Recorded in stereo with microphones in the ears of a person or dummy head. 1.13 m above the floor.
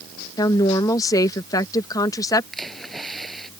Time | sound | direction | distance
0.4 | a woman speaking | 20° left (ahead or behind) | ?
2.5 | a splash | 5° left (ahead or behind) | ?